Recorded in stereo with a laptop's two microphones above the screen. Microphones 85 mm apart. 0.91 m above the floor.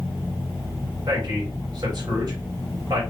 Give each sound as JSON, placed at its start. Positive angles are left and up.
{"t": 1.1, "sound": "a man speaking", "side_deg": -50, "distance_m": 3.0}